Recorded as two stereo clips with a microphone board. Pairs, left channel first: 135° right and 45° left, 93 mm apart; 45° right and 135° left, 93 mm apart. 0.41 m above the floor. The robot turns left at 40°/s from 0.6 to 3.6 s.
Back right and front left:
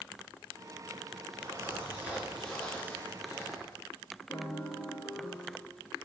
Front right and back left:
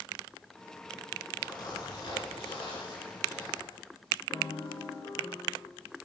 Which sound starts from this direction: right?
A piano, at 4.3 s.